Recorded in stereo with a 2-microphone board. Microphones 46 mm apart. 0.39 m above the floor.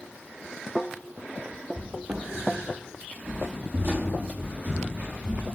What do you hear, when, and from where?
1.8 s footsteps: 30° right (ahead or behind), 0.6 m; by 5.4 s 35° right (ahead or behind), 1.9 m